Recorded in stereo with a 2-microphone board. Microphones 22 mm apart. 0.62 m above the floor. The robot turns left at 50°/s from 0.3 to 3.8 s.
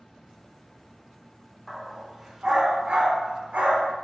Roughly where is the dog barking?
Centre.